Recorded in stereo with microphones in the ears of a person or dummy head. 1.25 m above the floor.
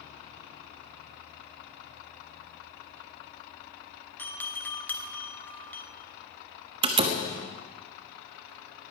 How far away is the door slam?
About 1.3 m.